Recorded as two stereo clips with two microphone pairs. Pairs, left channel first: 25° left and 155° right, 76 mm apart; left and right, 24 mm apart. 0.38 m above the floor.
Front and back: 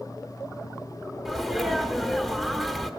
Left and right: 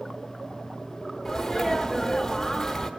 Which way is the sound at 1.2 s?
115° left.